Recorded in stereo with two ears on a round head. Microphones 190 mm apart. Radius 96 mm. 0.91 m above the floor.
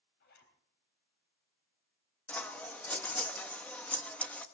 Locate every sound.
0.2 s a zipper: 50° left (ahead or behind), 3.5 m
2.3 s scissors: 5° left (ahead or behind), 1.0 m